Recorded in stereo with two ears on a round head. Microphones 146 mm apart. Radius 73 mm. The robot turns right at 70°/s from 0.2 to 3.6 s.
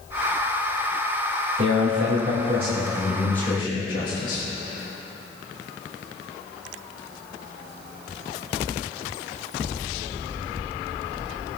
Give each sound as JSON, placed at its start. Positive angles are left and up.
{"t": 1.6, "sound": "a man speaking", "azimuth_deg": -110, "distance_m": 3.0}